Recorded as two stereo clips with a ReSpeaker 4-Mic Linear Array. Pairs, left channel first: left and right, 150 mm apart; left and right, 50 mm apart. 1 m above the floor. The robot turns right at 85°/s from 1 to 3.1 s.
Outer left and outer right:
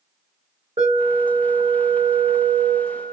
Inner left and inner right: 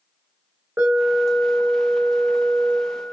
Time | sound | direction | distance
0.8 | an alarm | 55° right | 1.3 m